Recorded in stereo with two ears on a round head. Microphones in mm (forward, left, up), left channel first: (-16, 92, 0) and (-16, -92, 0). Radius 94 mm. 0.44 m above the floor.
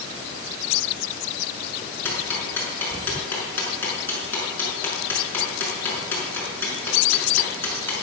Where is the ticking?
10° left (ahead or behind), 5.5 m.